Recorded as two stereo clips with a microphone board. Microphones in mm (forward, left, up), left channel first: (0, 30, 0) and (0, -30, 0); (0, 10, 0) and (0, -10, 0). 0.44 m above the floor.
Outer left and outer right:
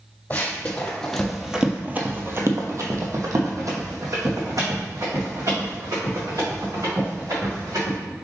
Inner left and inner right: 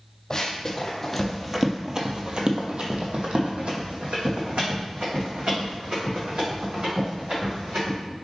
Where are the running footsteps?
30° left (ahead or behind), 1.2 m; by 8.0 s 75° right (ahead or behind), 4 m.